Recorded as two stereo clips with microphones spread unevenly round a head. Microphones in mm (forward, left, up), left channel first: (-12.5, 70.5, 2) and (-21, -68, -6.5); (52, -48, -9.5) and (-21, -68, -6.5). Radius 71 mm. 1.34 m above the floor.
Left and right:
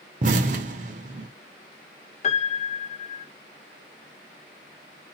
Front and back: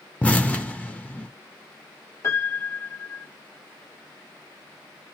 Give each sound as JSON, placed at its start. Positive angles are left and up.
{"t": 0.2, "sound": "an explosion", "azimuth_deg": -55, "distance_m": 0.8}
{"t": 2.2, "sound": "a piano", "azimuth_deg": 70, "distance_m": 0.6}